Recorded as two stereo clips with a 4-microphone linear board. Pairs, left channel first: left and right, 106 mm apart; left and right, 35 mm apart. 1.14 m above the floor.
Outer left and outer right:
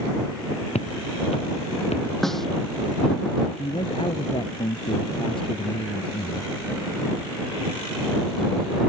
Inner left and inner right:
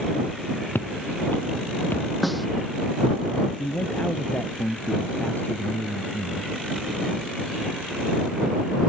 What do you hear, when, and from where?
0.8 s footsteps: 80° left
2.2 s a snare drum: 5° left (ahead or behind)
3.6 s a man speaking: 55° left (ahead or behind)